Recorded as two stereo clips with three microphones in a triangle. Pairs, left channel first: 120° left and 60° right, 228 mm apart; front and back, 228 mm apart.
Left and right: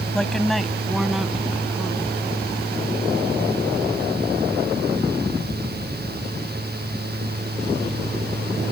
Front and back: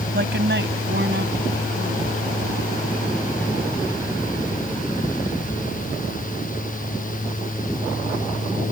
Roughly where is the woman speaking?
Behind right.